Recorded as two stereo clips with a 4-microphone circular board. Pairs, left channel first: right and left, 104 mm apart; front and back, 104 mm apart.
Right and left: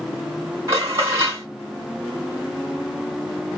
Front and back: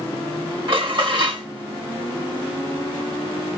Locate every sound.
0.7 s dishes clattering: 145° left, 2.5 m